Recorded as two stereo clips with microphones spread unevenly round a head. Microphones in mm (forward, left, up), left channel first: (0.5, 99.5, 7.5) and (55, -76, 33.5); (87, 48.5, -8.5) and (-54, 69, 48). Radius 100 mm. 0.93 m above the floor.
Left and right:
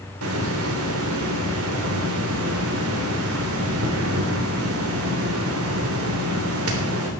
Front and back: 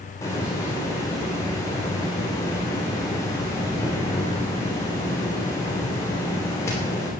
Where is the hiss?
80° right, 3 m.